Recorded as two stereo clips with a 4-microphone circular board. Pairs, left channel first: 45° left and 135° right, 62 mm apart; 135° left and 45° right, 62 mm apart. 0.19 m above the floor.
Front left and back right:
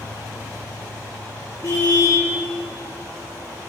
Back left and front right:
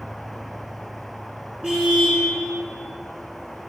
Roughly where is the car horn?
Ahead left.